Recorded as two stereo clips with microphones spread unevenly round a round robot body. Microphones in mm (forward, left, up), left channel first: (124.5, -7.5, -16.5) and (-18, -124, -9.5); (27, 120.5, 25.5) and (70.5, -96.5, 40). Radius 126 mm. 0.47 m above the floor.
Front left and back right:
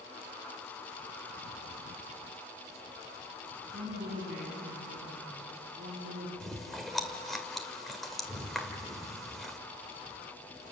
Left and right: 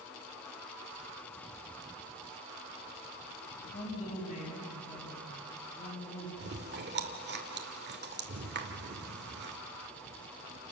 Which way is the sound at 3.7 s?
160° left.